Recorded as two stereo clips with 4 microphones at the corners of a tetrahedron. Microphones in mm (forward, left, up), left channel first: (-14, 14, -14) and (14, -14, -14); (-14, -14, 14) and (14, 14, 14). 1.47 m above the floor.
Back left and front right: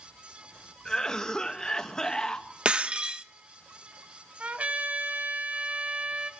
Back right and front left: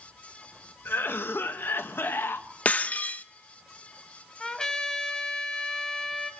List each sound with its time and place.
0.8 s a cough: 150° right, 1.8 m
2.6 s breaking glass: 100° right, 0.9 m
4.4 s a trumpet: 70° right, 1.6 m